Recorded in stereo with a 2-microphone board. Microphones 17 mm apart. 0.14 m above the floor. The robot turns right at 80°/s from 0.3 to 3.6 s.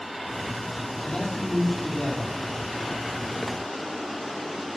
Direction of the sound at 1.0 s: 65° left.